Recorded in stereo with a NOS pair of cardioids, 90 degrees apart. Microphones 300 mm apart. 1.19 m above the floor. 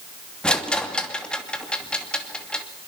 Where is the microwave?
No microwave in this recording.